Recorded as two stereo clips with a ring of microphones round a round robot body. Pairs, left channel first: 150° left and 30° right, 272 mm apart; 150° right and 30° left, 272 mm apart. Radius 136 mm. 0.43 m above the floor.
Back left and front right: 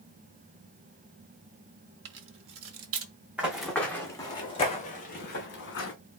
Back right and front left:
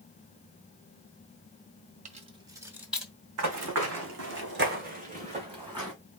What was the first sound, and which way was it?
Keys jangling, 20° right.